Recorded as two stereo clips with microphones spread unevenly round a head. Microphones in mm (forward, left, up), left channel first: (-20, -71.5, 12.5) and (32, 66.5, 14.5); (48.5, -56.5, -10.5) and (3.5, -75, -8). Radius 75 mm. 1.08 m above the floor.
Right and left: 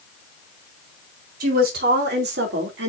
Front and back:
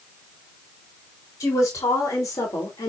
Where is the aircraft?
I don't hear an aircraft.